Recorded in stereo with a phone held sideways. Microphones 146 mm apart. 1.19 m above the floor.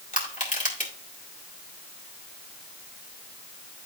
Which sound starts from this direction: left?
Crushing, at 0.1 s.